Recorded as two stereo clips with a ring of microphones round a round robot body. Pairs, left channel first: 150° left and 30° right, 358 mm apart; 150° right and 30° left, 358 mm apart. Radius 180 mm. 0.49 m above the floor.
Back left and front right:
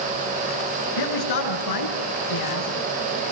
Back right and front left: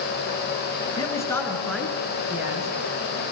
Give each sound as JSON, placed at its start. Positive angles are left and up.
{"t": 1.0, "sound": "a man speaking", "azimuth_deg": 130, "distance_m": 6.5}